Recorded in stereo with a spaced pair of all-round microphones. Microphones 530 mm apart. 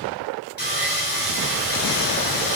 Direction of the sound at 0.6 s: 20° left (ahead or behind).